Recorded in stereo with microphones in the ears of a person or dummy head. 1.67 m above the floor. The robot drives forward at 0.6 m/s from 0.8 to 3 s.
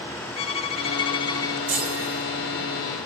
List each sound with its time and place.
0.4 s a violin: 35° left (ahead or behind), 0.9 m; by 1.6 s 20° left (ahead or behind), 1.4 m
1.7 s a chime: 40° right (ahead or behind), 6 m; by 2.3 s 35° right (ahead or behind), 6 m